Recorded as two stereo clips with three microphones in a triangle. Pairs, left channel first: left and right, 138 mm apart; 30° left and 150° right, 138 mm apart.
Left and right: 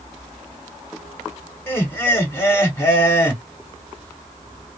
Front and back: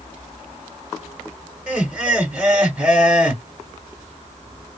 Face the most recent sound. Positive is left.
turn(degrees=140)